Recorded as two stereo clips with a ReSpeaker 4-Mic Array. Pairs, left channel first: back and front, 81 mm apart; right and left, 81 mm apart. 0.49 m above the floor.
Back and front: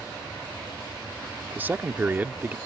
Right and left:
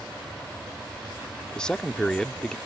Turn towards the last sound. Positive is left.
turn(degrees=-20)